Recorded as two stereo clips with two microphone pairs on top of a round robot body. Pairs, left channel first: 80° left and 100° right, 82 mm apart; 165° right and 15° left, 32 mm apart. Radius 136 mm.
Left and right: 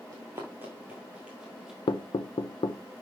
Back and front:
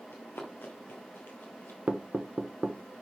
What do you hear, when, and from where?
0.1 s running footsteps: 165° right, 1.2 m; by 1.8 s 170° left, 1.9 m
1.9 s knocking: 55° left, 0.9 m